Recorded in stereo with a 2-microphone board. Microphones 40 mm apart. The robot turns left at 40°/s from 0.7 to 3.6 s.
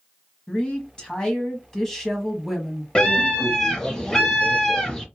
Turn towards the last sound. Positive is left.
turn(degrees=15)  # may be behind; listen again after turning